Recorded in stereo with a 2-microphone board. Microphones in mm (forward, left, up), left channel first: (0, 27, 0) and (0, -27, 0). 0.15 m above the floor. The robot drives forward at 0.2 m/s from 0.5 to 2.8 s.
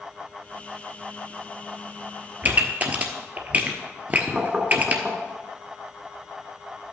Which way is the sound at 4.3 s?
20° right (ahead or behind).